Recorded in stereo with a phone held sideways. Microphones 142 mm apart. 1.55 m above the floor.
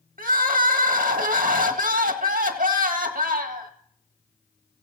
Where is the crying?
65° right (ahead or behind), 1.6 m.